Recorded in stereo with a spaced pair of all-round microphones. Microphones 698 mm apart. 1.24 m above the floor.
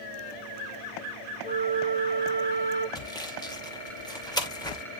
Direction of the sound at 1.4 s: 10° left (ahead or behind).